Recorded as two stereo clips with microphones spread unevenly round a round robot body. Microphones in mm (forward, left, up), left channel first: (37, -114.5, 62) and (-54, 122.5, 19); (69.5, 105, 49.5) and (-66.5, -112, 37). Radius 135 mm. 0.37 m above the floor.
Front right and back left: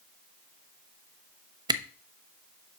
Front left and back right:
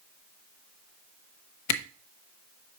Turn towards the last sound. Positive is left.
turn(degrees=40)